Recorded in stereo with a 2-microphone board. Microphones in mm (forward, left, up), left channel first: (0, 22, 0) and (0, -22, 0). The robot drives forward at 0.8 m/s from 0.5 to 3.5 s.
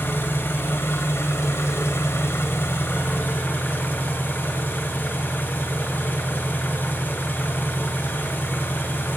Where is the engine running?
50° left (ahead or behind), 2 m; by 9.2 s 45° left (ahead or behind), 2.5 m.